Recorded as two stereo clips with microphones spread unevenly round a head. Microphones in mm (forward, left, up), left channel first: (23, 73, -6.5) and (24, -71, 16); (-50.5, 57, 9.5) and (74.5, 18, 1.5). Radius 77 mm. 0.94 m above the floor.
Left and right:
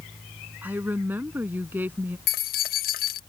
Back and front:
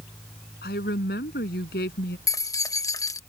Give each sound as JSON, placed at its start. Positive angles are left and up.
{"t": 0.6, "sound": "a woman speaking", "azimuth_deg": -170}
{"t": 2.3, "sound": "keys jangling", "azimuth_deg": 95}